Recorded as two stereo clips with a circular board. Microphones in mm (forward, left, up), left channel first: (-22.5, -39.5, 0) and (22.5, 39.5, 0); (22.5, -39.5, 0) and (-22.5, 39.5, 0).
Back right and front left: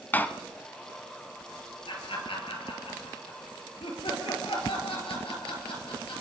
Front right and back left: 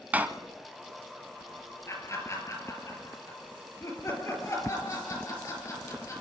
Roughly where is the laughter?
Behind right.